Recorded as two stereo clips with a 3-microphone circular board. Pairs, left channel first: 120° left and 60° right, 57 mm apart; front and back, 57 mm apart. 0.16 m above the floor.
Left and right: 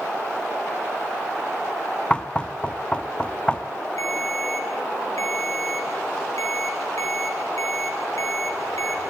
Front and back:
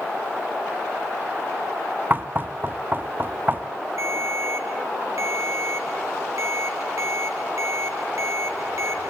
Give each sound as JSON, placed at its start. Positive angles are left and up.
{"t": 2.1, "sound": "knocking", "azimuth_deg": 175, "distance_m": 0.9}
{"t": 4.0, "sound": "a ringtone", "azimuth_deg": 150, "distance_m": 2.5}